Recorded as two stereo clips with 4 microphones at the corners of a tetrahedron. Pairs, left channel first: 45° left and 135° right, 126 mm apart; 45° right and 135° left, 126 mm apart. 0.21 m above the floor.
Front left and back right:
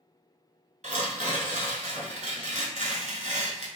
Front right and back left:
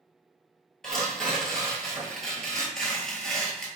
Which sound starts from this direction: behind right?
Tearing paper, at 0.8 s.